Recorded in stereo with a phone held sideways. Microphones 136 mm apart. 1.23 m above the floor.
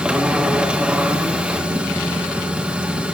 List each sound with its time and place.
0.0 s a machine running: 10° right (ahead or behind), 1.3 m